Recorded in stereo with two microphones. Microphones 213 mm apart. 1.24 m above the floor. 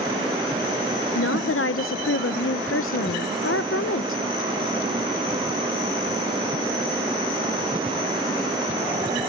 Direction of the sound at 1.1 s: 80° left.